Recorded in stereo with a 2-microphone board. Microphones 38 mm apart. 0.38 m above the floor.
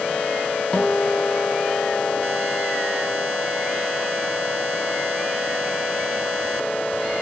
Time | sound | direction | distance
0.7 | a guitar | 30° left (ahead or behind) | 1.8 m